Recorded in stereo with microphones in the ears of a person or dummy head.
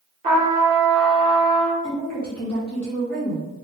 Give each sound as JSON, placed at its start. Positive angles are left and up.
{"t": 0.2, "sound": "a trumpet", "side_deg": -25, "distance_m": 0.8}
{"t": 1.8, "sound": "a woman speaking", "side_deg": 5, "distance_m": 1.4}